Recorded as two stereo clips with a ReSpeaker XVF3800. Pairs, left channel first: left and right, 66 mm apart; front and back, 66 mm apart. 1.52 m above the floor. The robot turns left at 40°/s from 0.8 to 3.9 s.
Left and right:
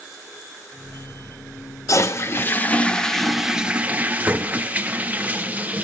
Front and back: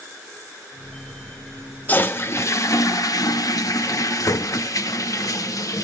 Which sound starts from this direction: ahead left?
A toilet flushing, at 1.9 s.